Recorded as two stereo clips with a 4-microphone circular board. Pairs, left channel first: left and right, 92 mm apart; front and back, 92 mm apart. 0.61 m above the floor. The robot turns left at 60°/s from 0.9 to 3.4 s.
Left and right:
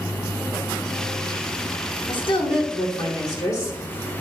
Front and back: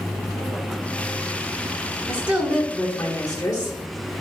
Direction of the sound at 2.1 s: 130° left.